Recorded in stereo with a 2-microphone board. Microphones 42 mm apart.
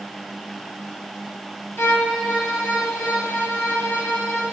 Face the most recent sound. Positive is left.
turn(degrees=65)  # may be behind; listen again after turning